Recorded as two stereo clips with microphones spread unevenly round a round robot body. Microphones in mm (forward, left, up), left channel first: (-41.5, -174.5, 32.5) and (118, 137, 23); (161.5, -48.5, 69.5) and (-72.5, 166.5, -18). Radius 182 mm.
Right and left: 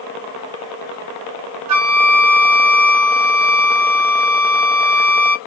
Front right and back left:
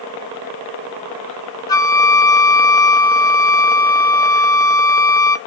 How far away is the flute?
About 0.6 m.